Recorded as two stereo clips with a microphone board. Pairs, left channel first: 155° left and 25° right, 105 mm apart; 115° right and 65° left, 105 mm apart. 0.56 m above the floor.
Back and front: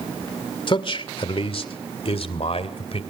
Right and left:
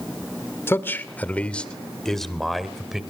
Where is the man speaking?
175° right, 1.8 m; by 3.0 s 155° left, 2.5 m.